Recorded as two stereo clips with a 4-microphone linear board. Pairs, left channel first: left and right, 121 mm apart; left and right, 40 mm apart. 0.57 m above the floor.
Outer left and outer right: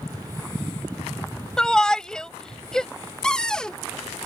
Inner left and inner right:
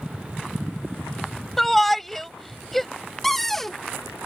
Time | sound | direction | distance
1.6 | a shout | 5° left (ahead or behind) | ?
3.2 | a cupboard door | 5° left (ahead or behind) | ?